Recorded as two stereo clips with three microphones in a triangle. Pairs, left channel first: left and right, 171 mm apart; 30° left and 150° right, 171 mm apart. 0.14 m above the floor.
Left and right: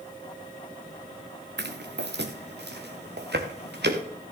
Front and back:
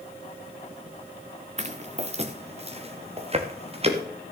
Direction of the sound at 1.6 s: 100° right.